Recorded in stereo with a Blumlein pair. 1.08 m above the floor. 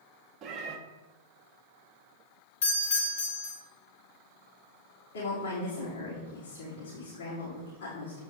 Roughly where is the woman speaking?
Ahead left.